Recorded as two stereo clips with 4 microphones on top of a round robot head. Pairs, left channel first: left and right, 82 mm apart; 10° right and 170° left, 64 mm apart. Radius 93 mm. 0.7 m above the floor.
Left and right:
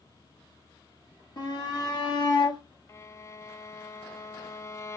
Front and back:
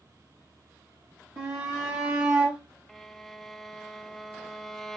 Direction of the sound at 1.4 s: 130° left.